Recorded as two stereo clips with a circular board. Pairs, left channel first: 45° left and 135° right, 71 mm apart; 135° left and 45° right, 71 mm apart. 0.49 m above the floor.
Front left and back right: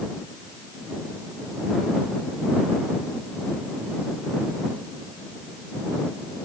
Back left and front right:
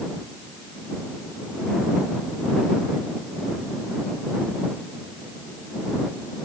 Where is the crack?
I don't hear a crack.